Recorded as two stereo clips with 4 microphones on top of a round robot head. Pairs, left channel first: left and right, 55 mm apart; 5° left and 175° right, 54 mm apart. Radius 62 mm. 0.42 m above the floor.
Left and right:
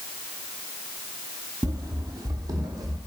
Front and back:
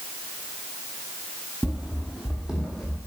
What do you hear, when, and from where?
1.6 s running footsteps: 95° right, 0.7 m; by 3.0 s 90° right, 1.5 m